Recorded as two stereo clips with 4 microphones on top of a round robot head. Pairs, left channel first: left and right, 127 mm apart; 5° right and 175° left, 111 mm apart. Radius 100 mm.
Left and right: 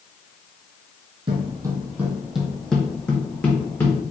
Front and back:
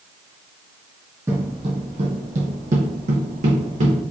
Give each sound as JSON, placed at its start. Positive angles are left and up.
{"t": 1.3, "sound": "footsteps", "azimuth_deg": -115, "distance_m": 0.5}